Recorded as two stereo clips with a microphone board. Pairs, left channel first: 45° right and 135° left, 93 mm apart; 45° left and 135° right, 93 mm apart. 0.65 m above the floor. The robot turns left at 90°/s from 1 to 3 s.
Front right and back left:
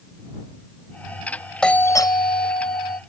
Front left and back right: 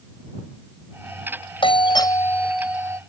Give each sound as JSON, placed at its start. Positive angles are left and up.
{"t": 1.6, "sound": "a doorbell", "azimuth_deg": 35}